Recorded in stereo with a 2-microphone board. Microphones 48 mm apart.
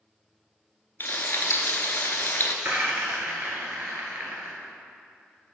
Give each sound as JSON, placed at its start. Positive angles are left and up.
{"t": 1.0, "sound": "frying", "side_deg": 50, "distance_m": 0.7}
{"t": 2.6, "sound": "a rattle", "side_deg": -50, "distance_m": 1.3}